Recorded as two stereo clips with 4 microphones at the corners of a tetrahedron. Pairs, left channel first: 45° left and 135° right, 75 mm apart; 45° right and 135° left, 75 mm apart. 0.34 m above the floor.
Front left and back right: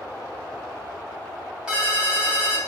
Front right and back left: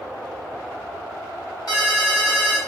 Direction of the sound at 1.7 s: 55° right.